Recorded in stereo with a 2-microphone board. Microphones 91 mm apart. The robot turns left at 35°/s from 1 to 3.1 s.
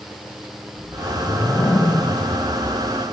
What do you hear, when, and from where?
0.8 s a whoosh: 150° left, 0.8 m; by 3.0 s 85° left, 0.8 m